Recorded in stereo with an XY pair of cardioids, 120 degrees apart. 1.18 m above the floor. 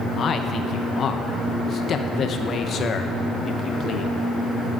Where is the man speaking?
45° left, 0.8 m.